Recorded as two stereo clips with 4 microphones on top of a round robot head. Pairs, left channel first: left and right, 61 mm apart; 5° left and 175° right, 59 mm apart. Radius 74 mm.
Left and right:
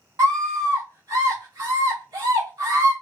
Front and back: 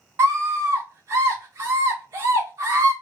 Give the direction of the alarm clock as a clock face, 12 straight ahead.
I don't hear an alarm clock.